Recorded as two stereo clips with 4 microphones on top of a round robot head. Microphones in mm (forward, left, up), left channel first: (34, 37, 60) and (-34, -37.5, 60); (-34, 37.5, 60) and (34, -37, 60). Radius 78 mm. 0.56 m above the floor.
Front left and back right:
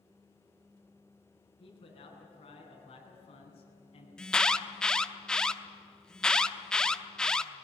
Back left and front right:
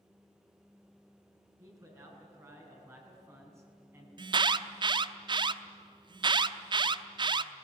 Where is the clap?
No clap in this recording.